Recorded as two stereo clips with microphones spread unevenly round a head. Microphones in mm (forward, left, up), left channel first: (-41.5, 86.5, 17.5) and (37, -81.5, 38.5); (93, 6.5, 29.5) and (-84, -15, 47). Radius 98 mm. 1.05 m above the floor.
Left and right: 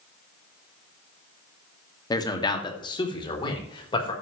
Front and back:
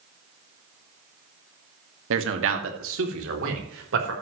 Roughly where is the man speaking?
Behind.